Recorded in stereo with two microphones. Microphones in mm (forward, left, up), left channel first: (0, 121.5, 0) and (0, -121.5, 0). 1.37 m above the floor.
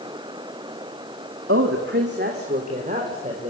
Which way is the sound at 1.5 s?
55° right (ahead or behind).